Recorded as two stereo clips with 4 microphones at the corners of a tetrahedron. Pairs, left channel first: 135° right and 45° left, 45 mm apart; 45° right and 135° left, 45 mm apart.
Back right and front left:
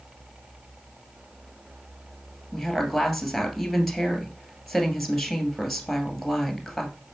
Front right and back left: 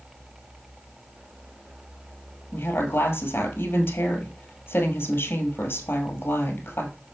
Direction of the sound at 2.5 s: 45° right.